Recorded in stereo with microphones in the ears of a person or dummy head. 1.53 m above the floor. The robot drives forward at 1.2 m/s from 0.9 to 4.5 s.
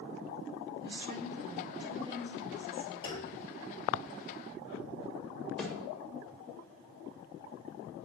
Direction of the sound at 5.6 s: Centre (ahead or behind).